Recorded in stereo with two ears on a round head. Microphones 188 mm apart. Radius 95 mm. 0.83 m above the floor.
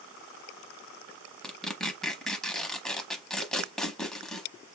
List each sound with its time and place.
1.4 s tearing paper: centre (ahead or behind), 0.9 m